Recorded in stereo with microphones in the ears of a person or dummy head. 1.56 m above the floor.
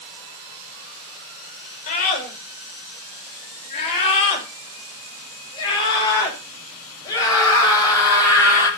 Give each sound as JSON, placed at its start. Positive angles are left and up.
{"t": 1.9, "sound": "a scream", "side_deg": 50, "distance_m": 6.5}